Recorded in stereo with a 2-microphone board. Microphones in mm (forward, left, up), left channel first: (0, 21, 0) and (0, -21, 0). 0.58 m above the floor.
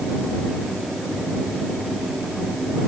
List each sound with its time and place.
Only background noise.